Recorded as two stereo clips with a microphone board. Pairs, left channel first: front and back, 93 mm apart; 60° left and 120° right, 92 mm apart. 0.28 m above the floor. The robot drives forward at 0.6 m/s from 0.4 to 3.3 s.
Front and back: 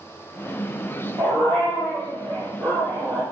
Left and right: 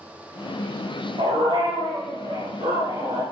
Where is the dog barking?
125° right, 10 m; by 3.2 s 130° right, 10.5 m.